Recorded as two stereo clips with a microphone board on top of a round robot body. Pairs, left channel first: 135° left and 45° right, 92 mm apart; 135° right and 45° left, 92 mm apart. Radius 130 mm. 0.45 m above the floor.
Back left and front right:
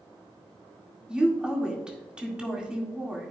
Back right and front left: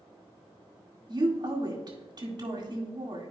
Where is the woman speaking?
30° left, 2.0 m.